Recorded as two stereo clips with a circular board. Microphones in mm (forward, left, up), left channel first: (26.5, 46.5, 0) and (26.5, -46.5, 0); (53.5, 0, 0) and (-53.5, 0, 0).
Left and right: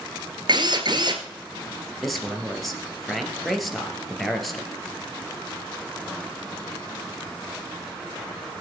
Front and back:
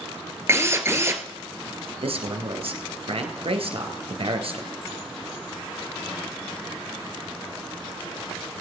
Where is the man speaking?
Straight behind, 2.5 m.